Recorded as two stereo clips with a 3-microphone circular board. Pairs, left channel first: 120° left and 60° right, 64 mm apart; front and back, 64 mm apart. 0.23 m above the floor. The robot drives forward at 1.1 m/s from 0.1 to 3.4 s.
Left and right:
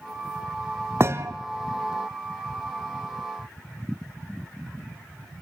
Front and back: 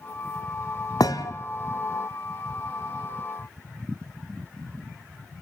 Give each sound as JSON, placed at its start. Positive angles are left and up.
{"t": 1.0, "sound": "a thud", "azimuth_deg": -10, "distance_m": 1.6}